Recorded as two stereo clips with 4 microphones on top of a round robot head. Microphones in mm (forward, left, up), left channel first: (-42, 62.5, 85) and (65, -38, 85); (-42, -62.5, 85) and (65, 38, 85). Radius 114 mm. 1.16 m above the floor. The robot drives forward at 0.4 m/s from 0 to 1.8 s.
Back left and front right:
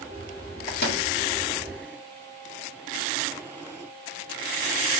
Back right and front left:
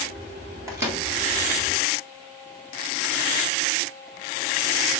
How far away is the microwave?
About 1.9 m.